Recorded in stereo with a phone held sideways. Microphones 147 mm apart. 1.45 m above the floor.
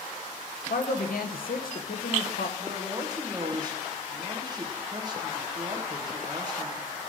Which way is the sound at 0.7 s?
85° left.